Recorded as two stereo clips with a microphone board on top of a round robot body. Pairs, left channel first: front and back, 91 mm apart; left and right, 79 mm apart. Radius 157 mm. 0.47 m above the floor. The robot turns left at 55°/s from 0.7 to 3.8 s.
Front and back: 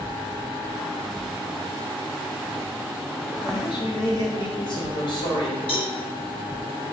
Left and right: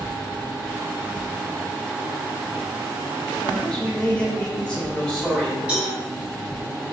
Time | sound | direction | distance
3.4 | a man speaking | 35° left | 1.3 m
5.7 | a cowbell | 15° right | 1.0 m